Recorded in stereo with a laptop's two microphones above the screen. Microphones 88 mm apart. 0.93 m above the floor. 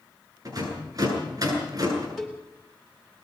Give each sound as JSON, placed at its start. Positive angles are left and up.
{"t": 0.5, "sound": "a rattle", "side_deg": -45, "distance_m": 9.5}
{"t": 2.2, "sound": "a cowbell", "side_deg": 0, "distance_m": 3.0}